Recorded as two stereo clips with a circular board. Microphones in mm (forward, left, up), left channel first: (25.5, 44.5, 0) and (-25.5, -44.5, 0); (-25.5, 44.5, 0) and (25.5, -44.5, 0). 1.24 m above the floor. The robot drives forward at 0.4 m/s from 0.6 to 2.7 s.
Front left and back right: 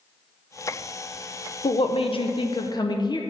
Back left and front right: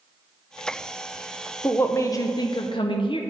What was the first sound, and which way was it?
A woman speaking, 50° left.